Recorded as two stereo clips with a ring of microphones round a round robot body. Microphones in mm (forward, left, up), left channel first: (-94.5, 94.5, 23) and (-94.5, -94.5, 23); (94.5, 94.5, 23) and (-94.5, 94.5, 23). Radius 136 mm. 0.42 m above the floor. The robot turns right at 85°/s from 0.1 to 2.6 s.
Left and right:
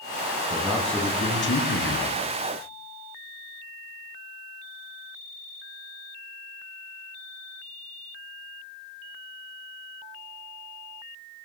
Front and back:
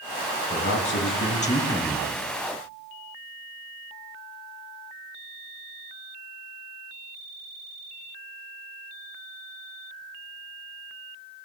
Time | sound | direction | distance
0.5 | a man speaking | 30° right | 2.5 m